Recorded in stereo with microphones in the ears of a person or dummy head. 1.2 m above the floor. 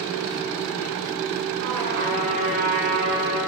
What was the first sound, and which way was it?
A trumpet, 70° right (ahead or behind).